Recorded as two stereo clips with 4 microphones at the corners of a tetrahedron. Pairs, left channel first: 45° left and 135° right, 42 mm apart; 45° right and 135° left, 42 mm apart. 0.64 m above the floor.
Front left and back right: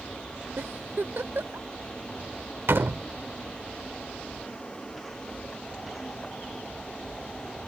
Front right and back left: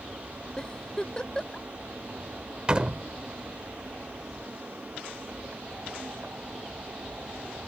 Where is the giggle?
110° right.